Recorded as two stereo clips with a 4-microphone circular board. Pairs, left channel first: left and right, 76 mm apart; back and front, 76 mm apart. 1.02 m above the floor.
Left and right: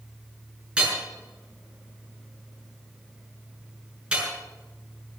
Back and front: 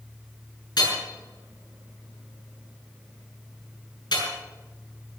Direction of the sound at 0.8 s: 165° right.